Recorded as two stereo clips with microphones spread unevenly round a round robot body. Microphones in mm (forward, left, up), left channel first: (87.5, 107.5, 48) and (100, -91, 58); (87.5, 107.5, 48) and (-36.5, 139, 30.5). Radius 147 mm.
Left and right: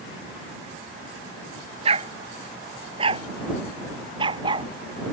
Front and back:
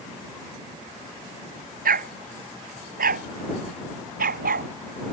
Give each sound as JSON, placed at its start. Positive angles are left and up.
{"t": 1.9, "sound": "a dog barking", "azimuth_deg": -155}